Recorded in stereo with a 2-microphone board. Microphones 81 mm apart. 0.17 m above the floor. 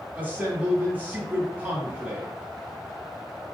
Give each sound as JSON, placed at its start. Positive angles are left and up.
{"t": 0.1, "sound": "a man speaking", "side_deg": -20, "distance_m": 1.5}